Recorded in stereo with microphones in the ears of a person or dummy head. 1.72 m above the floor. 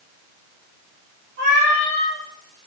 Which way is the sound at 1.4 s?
55° right (ahead or behind).